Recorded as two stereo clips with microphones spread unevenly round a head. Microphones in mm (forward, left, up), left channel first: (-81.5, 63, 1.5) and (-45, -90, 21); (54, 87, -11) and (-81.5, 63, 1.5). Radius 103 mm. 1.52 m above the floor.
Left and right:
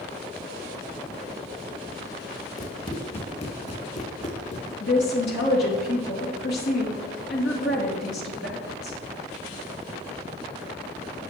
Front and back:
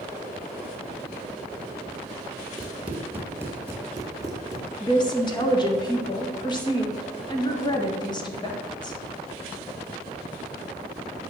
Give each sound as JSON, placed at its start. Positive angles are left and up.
{"t": 2.6, "sound": "running footsteps", "azimuth_deg": 135, "distance_m": 1.5}
{"t": 4.8, "sound": "a woman speaking", "azimuth_deg": 65, "distance_m": 2.5}